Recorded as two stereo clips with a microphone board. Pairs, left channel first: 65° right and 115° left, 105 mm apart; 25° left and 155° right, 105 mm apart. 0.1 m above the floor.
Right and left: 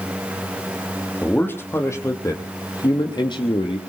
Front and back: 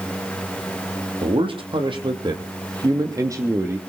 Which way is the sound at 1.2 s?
140° right.